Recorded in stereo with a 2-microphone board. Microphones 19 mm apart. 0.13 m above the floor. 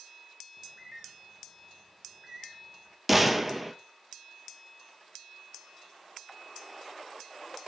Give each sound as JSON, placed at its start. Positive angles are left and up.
{"t": 0.6, "sound": "a bird", "side_deg": -25, "distance_m": 1.2}
{"t": 3.1, "sound": "a gunshot", "side_deg": -5, "distance_m": 0.6}